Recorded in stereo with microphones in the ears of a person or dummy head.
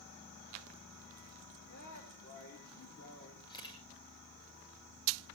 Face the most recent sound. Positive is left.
turn(degrees=25)  # may be behind; listen again after turning